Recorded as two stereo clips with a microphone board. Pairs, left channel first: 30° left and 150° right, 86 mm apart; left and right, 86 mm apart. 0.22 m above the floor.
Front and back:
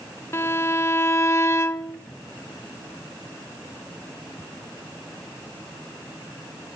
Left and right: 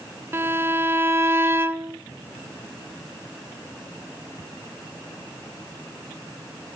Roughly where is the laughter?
No laughter in this recording.